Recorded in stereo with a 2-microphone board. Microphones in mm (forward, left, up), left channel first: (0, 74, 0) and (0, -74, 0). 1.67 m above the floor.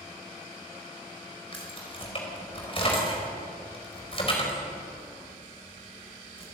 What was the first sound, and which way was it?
Keys jangling, 40° left (ahead or behind).